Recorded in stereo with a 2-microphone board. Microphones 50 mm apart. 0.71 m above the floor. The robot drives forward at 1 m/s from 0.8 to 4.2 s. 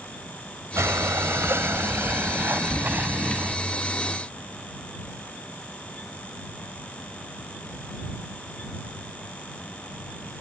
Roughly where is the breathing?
Right.